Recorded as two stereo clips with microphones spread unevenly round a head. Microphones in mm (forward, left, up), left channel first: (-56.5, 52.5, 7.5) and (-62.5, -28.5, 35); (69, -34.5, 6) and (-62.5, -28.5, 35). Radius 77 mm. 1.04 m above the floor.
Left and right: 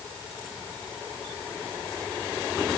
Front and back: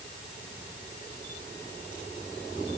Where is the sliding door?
I don't hear a sliding door.